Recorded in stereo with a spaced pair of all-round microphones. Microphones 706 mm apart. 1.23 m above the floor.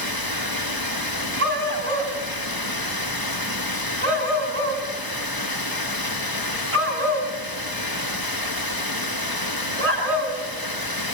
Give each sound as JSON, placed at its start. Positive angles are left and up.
{"t": 0.0, "sound": "running water", "side_deg": 30, "distance_m": 1.5}
{"t": 1.4, "sound": "a dog barking", "side_deg": -50, "distance_m": 4.5}